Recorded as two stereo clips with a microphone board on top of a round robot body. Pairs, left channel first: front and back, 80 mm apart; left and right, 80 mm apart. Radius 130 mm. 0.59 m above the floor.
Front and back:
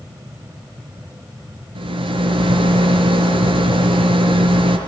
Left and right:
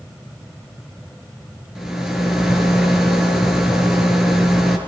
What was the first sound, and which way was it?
A rattle, 175° right.